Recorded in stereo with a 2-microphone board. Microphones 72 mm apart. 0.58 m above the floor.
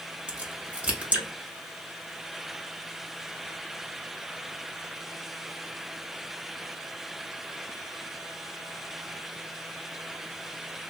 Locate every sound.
0.3 s a crack: 20° right (ahead or behind), 1.2 m